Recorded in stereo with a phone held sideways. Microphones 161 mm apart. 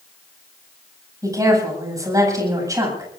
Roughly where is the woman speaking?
Right.